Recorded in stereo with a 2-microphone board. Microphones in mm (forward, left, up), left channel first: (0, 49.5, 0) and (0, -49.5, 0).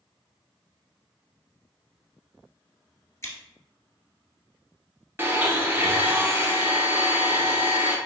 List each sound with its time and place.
3.2 s scissors: 30° left (ahead or behind), 1.2 m
5.2 s a blender: 25° right (ahead or behind), 0.6 m